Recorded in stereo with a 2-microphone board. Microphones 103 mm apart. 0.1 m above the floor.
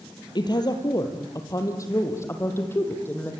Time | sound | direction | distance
0.3 | a woman speaking | 45° left (ahead or behind) | 3.5 m